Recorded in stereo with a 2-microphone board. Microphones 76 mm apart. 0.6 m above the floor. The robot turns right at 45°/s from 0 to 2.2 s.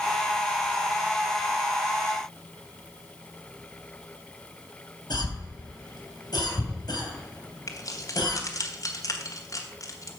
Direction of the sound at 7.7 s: 50° left (ahead or behind).